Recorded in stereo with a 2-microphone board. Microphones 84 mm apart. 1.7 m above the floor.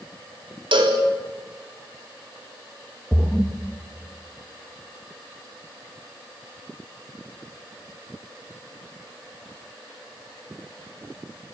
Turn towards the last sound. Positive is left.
turn(degrees=-5)  # may be behind; listen again after turning